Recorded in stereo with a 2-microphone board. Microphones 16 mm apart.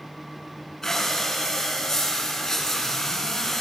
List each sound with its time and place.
0.8 s breathing: 25° left (ahead or behind), 5.5 m